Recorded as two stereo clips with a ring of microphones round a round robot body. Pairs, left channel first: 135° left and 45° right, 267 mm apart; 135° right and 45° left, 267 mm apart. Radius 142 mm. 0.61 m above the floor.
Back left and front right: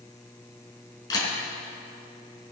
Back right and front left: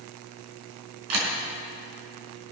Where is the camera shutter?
60° left, 4 m.